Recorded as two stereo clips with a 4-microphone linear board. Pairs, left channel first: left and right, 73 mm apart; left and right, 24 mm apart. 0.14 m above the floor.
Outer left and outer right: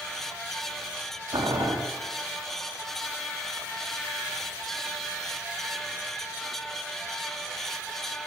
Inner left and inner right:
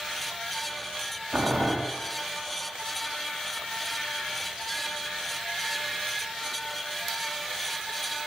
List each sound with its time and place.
1.3 s boiling: 75° right (ahead or behind), 4.5 m